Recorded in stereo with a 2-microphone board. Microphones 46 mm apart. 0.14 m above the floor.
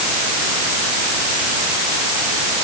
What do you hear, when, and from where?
Only background noise.